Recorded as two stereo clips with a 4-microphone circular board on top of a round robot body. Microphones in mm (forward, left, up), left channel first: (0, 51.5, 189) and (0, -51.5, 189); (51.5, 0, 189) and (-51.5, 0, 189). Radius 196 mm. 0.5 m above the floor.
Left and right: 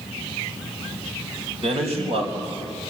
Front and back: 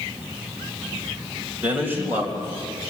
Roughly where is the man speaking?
Right.